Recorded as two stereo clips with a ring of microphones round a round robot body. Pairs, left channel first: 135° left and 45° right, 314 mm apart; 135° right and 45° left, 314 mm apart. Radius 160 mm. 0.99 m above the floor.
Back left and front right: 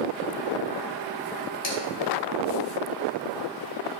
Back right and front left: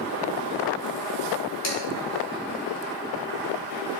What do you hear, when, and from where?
1.6 s dishes clattering: straight behind, 3 m